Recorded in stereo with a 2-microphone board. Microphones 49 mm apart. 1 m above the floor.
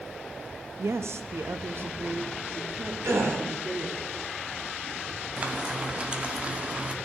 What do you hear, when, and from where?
0.8 s a woman speaking: 75° right (ahead or behind), 1.0 m; by 4.0 s 30° right (ahead or behind), 2.5 m
3.0 s a gasp: 75° right (ahead or behind), 3.5 m
5.4 s frying: 25° right (ahead or behind), 1.4 m